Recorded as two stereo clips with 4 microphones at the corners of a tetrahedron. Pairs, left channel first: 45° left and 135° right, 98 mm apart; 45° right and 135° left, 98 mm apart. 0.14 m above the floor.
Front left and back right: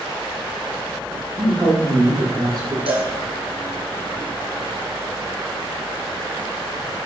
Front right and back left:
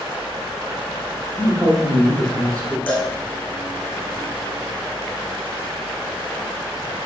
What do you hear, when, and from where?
1.4 s a man speaking: 170° left, 5 m; by 2.8 s 170° right, 4.5 m
2.9 s a cowbell: 120° right, 3.5 m